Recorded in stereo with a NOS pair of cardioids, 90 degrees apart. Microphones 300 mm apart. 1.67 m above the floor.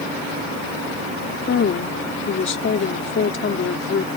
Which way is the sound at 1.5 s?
45° left.